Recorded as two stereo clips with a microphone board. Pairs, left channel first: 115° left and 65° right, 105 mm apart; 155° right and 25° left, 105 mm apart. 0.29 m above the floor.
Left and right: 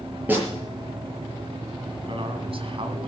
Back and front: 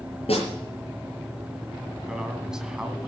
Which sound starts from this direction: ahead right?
A man speaking, at 2.1 s.